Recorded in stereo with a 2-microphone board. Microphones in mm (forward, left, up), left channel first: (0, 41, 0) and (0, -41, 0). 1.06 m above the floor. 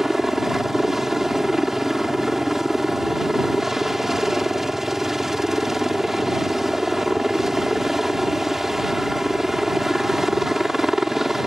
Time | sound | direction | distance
0.0 | a helicopter | 5° right (ahead or behind) | ?